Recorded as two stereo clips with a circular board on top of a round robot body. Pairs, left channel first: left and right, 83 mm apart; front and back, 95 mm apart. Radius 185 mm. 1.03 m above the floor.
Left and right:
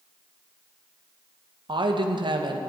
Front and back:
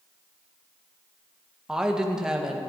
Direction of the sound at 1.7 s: 95° right.